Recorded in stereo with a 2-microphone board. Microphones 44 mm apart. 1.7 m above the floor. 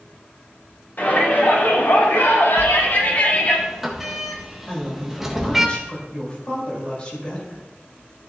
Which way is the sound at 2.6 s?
5° right (ahead or behind).